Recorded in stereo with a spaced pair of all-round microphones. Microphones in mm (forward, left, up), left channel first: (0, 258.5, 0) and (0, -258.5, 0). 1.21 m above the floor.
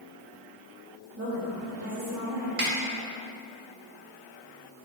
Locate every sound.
1.2 s a woman speaking: 30° right (ahead or behind), 2 m; by 2.5 s 50° right (ahead or behind), 2.5 m
2.6 s a snare drum: 80° right, 1.3 m